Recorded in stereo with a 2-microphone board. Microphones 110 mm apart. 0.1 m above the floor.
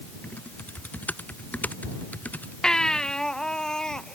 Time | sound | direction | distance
0.2 | typing on a keyboard | 15° left (ahead or behind) | ?
2.6 | a baby crying | 5° left (ahead or behind) | ?